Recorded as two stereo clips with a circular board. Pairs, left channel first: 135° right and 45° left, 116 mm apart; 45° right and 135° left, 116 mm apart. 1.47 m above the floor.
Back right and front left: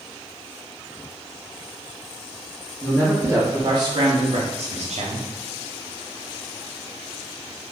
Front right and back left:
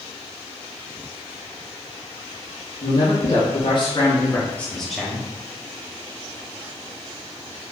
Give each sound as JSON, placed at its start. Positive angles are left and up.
{"t": 2.8, "sound": "a man speaking", "azimuth_deg": -35, "distance_m": 1.0}